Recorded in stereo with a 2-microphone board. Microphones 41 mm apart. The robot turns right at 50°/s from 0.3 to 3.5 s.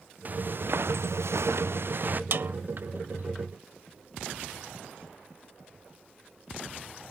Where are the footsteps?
40° right (ahead or behind); by 2.2 s 50° right (ahead or behind).